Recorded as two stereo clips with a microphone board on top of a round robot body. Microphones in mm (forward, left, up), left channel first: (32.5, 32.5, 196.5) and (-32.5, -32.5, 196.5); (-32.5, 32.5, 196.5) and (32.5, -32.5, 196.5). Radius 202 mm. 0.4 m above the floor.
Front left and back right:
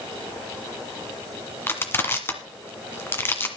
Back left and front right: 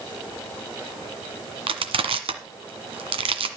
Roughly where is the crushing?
Ahead right.